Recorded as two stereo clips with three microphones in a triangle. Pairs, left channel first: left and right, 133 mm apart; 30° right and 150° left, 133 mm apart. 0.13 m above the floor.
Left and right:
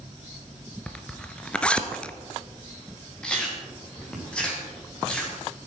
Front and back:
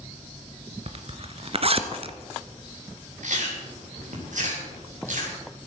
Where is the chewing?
175° left, 4.5 m.